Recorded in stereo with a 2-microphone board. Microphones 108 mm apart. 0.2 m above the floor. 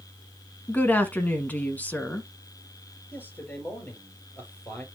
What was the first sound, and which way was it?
A woman speaking, 15° left (ahead or behind).